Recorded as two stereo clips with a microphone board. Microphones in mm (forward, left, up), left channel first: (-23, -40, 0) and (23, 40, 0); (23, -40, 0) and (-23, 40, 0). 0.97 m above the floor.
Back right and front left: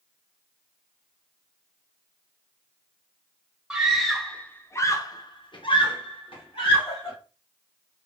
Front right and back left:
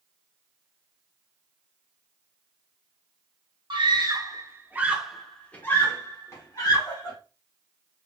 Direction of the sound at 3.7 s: 140° left.